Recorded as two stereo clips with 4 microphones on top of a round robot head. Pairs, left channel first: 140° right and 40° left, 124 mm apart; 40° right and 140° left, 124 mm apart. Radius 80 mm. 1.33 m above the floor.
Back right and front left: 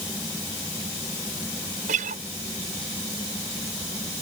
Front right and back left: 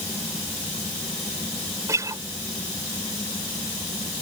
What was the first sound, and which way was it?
A guitar, 70° left.